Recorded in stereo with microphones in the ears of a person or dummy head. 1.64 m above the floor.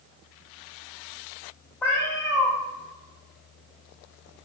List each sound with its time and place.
1.8 s a cat meowing: 10° left (ahead or behind), 1.2 m